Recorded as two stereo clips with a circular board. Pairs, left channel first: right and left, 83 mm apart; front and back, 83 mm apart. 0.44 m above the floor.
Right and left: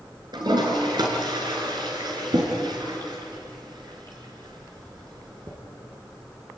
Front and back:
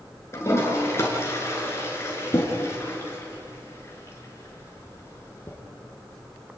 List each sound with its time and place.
0.3 s a toilet flushing: 60° left, 5 m